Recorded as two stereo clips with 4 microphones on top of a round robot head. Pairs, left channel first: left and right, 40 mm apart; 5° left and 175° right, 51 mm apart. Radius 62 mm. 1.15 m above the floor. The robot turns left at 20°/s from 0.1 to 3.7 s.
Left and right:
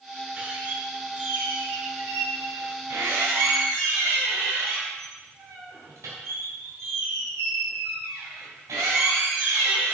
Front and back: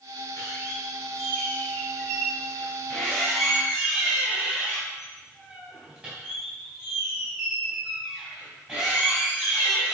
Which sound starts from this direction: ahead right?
A squeak, at 0.4 s.